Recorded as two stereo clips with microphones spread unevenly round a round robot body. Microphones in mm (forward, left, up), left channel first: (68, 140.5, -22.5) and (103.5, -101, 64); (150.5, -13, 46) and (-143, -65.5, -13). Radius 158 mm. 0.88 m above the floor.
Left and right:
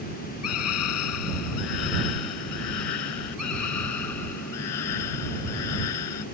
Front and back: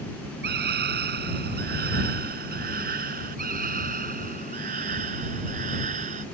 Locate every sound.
0.4 s a scream: 130° left; by 6.2 s 120° left